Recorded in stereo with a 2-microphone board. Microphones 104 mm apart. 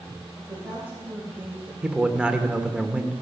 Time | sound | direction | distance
0.4 | a woman speaking | 15° right (ahead or behind) | 2.5 m
1.8 | a man speaking | 10° right (ahead or behind) | 0.9 m